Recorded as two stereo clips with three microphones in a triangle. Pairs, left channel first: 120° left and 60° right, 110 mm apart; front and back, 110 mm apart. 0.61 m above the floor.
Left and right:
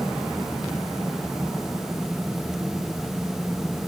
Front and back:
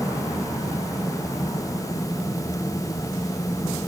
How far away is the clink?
No clink in this recording.